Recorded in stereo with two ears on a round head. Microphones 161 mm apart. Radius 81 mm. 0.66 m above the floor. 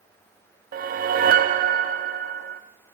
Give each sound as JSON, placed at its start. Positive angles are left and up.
{"t": 0.7, "sound": "a whoosh", "side_deg": -50, "distance_m": 0.6}